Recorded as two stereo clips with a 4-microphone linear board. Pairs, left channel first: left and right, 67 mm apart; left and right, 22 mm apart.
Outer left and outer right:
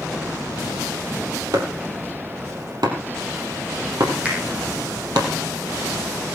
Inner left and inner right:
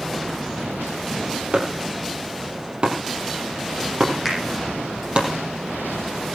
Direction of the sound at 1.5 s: 75° right (ahead or behind).